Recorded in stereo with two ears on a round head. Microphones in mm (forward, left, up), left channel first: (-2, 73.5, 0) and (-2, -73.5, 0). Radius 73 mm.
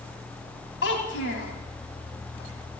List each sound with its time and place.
0.8 s a child speaking: 75° left (ahead or behind), 1.9 m